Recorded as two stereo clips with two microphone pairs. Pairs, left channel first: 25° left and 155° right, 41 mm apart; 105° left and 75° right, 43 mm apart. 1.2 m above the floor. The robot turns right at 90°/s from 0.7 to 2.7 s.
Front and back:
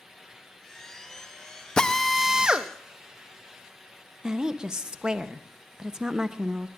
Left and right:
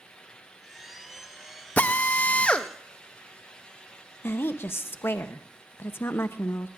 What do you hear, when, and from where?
1.8 s a drill: 85° left, 0.5 m; by 2.7 s 170° left, 0.5 m
4.2 s a woman speaking: 135° left, 0.7 m